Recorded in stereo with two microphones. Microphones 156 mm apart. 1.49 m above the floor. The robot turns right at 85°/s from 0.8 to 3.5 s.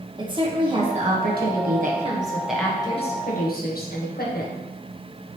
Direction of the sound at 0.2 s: 150° right.